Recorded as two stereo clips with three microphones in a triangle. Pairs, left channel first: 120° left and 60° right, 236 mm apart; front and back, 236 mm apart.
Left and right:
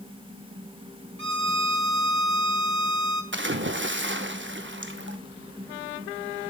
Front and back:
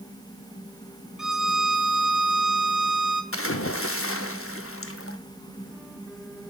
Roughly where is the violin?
Right.